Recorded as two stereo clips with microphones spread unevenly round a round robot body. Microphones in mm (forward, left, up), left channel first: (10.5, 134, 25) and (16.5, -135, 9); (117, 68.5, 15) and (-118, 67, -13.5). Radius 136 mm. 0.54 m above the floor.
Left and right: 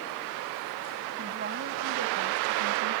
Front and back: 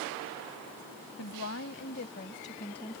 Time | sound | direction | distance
1.2 | a woman speaking | 35° right | ?